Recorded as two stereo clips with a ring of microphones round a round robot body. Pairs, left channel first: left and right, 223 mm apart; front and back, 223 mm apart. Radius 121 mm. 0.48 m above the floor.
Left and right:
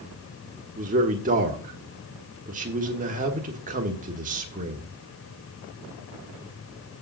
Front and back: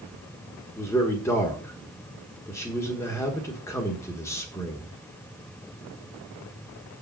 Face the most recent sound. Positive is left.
turn(degrees=-70)